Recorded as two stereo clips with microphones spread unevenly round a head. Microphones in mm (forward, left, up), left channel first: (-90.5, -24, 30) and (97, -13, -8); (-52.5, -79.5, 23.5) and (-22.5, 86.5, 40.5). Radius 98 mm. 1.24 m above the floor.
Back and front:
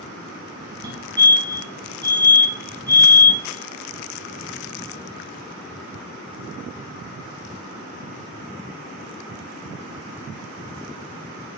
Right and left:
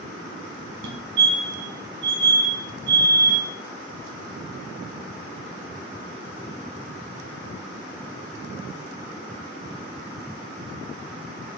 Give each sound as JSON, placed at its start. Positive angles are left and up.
{"t": 0.8, "sound": "a fire alarm", "azimuth_deg": 65, "distance_m": 2.5}